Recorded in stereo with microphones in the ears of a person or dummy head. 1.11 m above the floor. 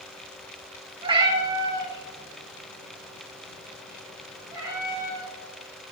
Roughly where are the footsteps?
No footsteps in this recording.